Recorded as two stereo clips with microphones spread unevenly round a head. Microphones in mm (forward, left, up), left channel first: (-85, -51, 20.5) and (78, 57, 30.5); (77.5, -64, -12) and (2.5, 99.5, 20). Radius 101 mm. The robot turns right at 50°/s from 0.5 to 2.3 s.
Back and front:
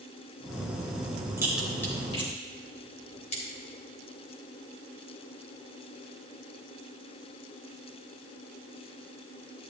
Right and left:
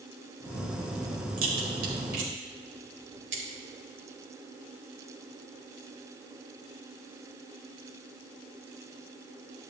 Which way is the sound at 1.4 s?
110° left.